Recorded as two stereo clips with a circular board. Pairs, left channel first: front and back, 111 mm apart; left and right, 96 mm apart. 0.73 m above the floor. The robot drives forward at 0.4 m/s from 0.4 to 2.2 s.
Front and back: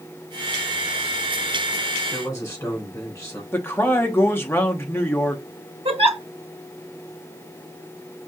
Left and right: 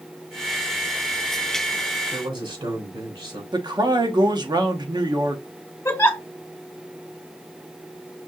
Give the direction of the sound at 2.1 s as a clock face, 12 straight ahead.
2 o'clock.